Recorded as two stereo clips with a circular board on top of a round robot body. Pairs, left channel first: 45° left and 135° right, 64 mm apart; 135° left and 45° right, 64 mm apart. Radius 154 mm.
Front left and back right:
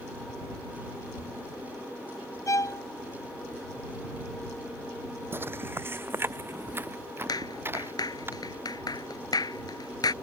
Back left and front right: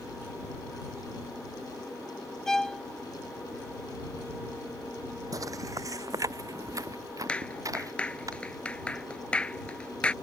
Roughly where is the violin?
Ahead left.